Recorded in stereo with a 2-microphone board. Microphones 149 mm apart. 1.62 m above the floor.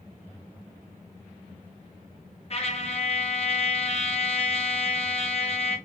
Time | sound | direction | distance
2.5 | a trumpet | 45° left (ahead or behind) | 1.3 m